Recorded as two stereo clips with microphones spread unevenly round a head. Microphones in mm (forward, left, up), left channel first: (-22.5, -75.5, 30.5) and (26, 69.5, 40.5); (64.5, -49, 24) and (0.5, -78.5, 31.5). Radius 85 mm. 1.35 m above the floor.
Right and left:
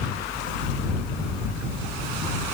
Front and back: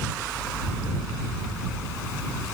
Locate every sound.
Only background noise.